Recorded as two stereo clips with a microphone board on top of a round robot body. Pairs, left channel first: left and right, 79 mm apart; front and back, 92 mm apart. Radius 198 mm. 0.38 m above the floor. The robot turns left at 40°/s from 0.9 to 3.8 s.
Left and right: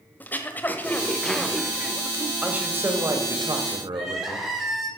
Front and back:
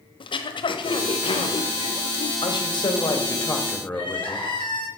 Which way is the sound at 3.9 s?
5° right.